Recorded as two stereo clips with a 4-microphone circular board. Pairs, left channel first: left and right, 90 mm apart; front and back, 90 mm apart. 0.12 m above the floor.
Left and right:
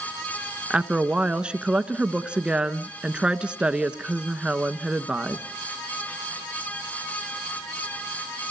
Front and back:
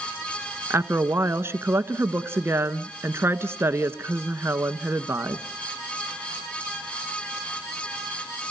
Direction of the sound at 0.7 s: 160° right.